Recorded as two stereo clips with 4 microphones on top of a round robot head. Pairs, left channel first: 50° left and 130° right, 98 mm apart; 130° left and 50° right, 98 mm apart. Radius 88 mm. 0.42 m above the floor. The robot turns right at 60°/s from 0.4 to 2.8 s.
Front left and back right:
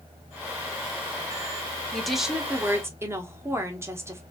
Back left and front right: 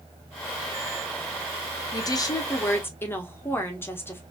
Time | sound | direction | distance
1.9 | a woman speaking | 130° left | 1.2 m